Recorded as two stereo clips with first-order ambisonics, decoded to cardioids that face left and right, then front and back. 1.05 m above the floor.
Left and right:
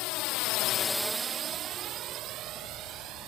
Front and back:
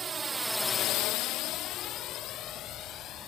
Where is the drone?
110° left; by 3.3 s 50° right.